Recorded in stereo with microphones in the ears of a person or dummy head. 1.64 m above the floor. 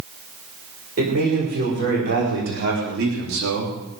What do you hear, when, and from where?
1.0 s a man speaking: 50° right (ahead or behind), 6 m; by 3.8 s 75° right (ahead or behind), 3 m